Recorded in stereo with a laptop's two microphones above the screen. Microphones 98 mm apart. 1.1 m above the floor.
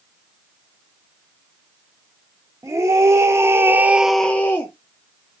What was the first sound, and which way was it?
A scream, 30° right (ahead or behind).